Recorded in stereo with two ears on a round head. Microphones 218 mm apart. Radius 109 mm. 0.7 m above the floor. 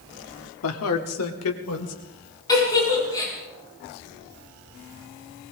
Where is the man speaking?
60° left (ahead or behind), 1.6 m; by 1.9 s 70° left (ahead or behind), 3 m.